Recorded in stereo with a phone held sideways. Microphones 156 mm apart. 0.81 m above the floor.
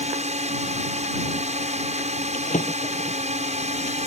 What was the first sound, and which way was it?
A drone, 45° right (ahead or behind).